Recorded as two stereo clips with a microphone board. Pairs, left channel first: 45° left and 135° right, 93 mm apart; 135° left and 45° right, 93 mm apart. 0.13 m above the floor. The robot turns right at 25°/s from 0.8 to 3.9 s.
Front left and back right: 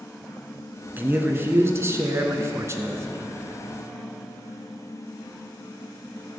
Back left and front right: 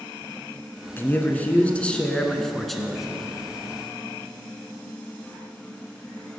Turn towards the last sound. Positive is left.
turn(degrees=-105)